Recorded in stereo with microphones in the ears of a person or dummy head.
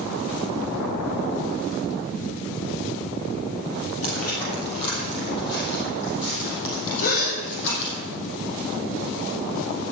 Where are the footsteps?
45° left (ahead or behind), 2.5 m; by 8.0 s 70° left (ahead or behind), 3.5 m.